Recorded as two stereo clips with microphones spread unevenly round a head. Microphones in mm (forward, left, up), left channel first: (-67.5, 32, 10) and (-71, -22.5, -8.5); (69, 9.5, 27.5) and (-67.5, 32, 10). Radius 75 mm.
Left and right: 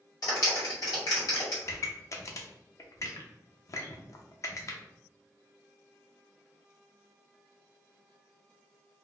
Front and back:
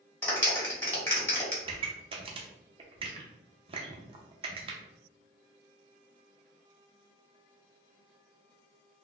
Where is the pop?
125° left, 0.6 m.